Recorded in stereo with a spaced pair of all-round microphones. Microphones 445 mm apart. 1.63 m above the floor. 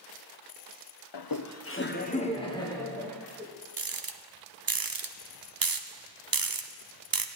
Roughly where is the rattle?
Right.